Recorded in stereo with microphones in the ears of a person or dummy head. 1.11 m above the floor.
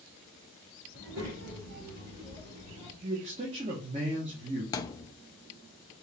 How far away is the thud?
About 0.6 m.